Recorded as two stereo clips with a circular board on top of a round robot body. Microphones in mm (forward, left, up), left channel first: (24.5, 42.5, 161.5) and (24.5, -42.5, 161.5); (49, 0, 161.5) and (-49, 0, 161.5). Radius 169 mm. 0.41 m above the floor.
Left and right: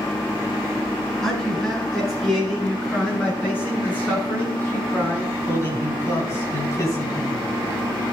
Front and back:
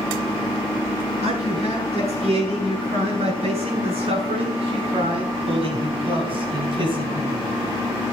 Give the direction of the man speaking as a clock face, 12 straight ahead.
6 o'clock.